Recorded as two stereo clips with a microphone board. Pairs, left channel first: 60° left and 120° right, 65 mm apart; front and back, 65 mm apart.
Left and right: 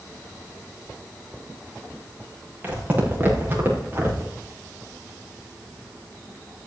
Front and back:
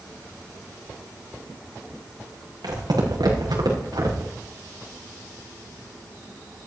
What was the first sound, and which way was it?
Footsteps, 175° left.